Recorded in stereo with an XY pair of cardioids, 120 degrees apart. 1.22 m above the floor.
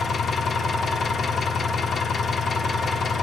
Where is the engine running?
35° left, 1.1 m.